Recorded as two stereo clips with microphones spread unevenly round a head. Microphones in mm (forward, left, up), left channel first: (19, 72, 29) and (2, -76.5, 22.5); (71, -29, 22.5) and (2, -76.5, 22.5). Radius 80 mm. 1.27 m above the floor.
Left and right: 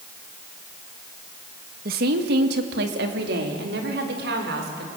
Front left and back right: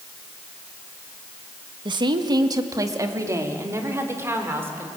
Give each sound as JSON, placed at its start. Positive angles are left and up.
{"t": 1.9, "sound": "a woman speaking", "azimuth_deg": -125, "distance_m": 1.7}